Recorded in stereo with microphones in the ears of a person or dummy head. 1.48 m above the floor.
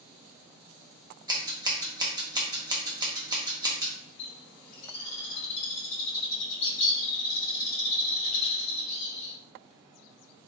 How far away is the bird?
About 1.2 m.